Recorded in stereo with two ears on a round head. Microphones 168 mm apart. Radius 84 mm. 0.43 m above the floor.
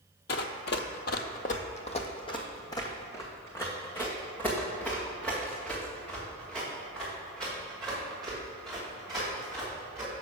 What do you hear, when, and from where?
0.3 s running footsteps: 55° left (ahead or behind), 0.7 m; by 10.1 s centre (ahead or behind), 5 m